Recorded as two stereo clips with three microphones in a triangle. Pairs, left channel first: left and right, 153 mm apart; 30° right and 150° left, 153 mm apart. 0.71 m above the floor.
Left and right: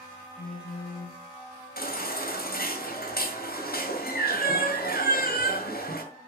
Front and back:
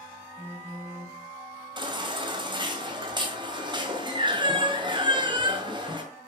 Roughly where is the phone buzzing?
Left.